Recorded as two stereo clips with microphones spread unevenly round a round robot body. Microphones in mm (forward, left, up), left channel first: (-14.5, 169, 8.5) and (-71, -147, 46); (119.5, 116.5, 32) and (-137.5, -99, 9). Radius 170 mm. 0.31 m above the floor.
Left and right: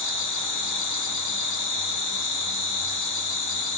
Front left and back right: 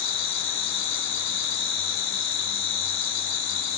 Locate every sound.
0.0 s an insect: 55° left, 3 m